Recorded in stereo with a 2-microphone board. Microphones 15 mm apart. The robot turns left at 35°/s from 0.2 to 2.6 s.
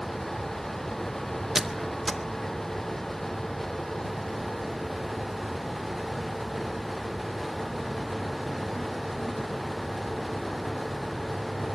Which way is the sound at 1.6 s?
10° right (ahead or behind).